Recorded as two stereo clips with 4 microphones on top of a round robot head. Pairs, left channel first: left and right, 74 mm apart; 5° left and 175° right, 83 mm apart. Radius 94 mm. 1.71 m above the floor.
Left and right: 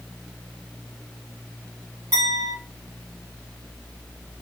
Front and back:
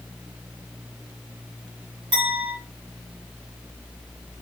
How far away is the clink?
About 3 m.